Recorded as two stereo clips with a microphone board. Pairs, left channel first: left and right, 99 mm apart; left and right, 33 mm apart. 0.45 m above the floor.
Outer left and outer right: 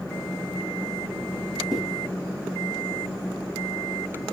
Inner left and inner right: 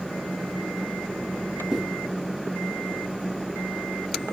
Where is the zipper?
Centre (ahead or behind), 2.5 m.